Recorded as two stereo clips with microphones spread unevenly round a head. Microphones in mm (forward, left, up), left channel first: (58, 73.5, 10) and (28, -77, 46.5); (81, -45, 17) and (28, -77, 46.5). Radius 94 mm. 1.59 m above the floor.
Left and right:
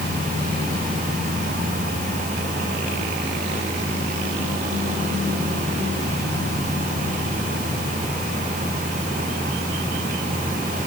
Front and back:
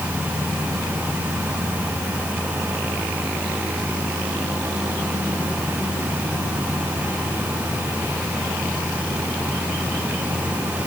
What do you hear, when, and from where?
Only background noise.